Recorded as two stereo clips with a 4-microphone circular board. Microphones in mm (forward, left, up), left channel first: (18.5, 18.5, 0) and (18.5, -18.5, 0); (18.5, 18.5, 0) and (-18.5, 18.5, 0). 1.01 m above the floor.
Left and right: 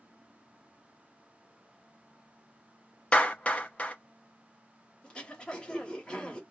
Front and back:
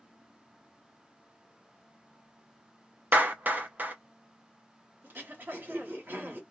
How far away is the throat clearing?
About 1.2 m.